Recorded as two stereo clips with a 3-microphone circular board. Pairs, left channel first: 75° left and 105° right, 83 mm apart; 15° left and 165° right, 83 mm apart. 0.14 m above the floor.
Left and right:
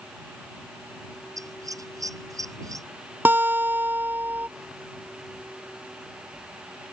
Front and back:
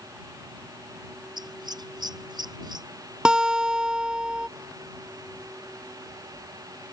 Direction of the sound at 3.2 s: 100° right.